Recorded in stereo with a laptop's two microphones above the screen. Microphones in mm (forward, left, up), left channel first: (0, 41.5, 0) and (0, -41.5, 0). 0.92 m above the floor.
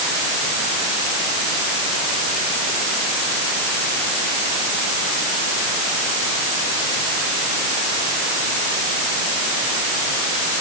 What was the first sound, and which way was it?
Only background noise.